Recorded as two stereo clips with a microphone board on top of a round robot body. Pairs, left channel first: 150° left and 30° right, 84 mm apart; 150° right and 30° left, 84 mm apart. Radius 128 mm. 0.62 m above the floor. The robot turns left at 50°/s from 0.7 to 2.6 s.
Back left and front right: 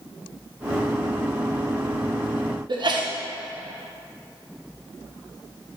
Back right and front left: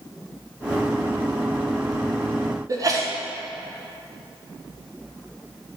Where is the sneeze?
15° right, 1.4 m.